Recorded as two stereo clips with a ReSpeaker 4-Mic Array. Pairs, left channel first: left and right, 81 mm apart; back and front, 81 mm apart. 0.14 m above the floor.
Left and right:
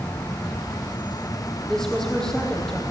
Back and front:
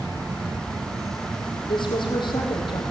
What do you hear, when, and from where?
0.0 s an insect: 25° left, 0.9 m
1.7 s a woman speaking: 175° left, 5 m